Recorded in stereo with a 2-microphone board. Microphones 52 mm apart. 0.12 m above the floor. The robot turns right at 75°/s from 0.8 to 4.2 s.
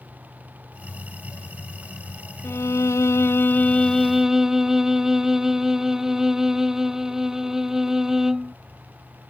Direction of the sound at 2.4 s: 55° left.